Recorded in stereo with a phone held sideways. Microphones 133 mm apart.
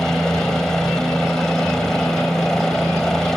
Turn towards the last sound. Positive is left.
turn(degrees=5)  # may be behind; listen again after turning